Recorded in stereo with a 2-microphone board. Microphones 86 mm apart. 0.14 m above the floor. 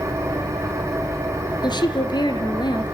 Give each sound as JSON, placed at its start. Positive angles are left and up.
{"t": 0.0, "sound": "an engine running", "side_deg": -35, "distance_m": 5.0}
{"t": 1.6, "sound": "a woman speaking", "side_deg": 60, "distance_m": 2.5}